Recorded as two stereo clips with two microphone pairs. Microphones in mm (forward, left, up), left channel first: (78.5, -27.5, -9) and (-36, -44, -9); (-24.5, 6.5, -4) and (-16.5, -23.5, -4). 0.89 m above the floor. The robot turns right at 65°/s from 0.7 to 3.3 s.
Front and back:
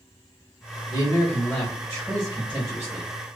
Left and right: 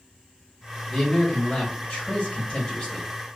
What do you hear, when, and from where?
0.9 s a man speaking: 20° left, 0.8 m; by 3.1 s 160° left, 0.8 m